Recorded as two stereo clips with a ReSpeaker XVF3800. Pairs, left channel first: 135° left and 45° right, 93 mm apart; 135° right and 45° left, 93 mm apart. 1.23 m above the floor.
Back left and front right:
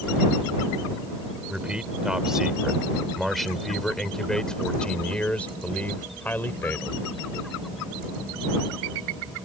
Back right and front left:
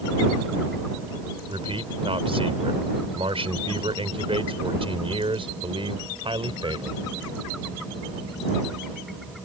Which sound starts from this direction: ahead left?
A man speaking, at 1.5 s.